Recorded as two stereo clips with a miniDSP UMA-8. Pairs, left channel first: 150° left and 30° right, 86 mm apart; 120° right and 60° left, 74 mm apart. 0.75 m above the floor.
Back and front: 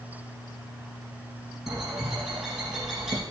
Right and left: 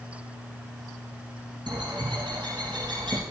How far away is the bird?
About 5 m.